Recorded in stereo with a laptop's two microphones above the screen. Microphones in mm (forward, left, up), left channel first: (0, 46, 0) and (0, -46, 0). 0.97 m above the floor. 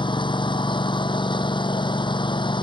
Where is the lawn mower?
60° left (ahead or behind).